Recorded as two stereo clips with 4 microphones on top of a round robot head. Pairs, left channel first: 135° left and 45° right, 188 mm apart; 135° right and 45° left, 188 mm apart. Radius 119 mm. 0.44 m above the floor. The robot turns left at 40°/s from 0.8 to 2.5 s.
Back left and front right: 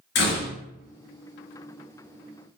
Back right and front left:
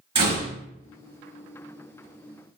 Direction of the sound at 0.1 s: 105° left.